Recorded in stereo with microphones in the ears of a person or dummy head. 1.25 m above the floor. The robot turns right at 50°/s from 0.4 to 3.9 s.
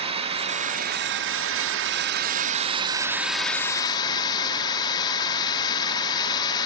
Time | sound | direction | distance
0.0 | a drone | 145° right | ?